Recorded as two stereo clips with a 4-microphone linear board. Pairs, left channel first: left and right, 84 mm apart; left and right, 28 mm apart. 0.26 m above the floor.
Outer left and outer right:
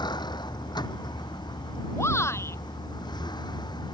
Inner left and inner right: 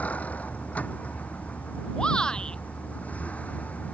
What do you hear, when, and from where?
0.0 s a vehicle: 60° left (ahead or behind)
2.0 s a shout: 30° left (ahead or behind)